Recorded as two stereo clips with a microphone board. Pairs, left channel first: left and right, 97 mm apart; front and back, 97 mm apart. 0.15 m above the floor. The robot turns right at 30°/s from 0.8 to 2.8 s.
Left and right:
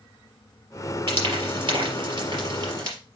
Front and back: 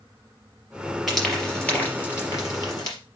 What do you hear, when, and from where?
1.1 s frying: 90° right, 3.5 m; by 3.0 s 40° right, 3.5 m